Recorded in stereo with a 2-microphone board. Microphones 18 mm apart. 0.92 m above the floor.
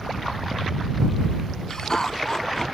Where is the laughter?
30° left (ahead or behind).